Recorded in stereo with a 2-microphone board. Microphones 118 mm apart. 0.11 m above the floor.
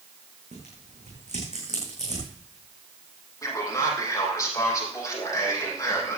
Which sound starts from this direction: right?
Tearing paper, at 0.5 s.